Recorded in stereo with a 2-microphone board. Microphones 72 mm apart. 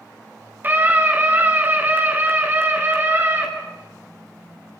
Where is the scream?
25° right (ahead or behind), 4.5 m; by 3.5 s 30° right (ahead or behind), 6.5 m.